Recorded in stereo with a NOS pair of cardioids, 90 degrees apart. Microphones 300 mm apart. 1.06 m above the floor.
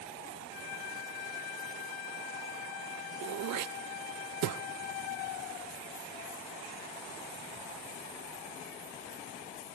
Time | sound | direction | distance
3.2 | throat clearing | 65° right | 0.6 m